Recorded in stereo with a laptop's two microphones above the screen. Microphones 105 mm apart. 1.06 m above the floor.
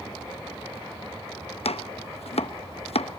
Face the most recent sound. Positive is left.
turn(degrees=75)  # may be behind; listen again after turning